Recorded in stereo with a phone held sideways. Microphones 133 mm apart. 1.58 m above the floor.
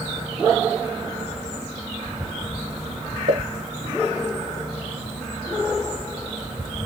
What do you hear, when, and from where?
3.3 s a pop: 55° right (ahead or behind), 1.2 m